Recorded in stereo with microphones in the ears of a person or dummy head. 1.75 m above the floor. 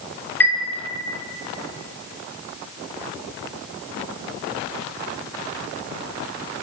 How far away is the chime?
About 0.7 m.